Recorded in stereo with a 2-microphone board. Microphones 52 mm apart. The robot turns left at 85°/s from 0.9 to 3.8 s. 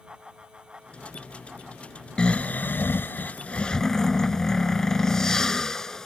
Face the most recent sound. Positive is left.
turn(degrees=15)